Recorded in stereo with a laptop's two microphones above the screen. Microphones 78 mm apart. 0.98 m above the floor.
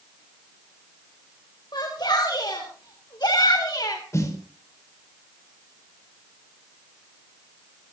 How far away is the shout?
About 4 m.